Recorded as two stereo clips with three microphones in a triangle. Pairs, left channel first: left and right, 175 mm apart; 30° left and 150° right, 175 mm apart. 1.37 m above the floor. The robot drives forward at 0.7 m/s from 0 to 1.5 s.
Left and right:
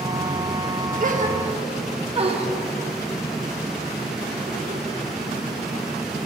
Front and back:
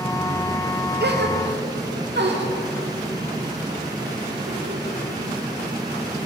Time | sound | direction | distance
1.0 | a gasp | 130° right | 0.7 m